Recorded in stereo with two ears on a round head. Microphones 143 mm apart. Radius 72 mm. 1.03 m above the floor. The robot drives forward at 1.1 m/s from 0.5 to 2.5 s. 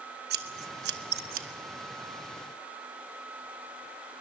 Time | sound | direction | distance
0.3 | scissors | 65° right (ahead or behind) | 1.2 m